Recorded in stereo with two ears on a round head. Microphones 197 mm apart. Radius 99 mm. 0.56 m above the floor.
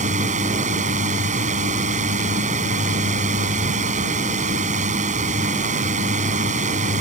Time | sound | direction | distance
0.0 | a drone | 35° right (ahead or behind) | ?